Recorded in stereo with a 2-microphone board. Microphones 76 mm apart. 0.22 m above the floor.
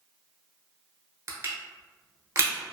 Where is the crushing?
40° right (ahead or behind), 0.7 m.